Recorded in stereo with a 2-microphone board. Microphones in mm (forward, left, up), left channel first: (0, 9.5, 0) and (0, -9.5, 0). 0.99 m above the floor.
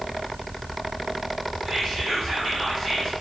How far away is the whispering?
About 1.6 m.